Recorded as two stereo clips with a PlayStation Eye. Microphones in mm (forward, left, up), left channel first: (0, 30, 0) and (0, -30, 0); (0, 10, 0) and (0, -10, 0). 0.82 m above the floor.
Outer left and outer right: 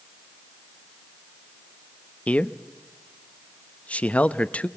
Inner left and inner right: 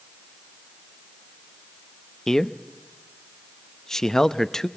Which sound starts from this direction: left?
A man speaking, at 2.3 s.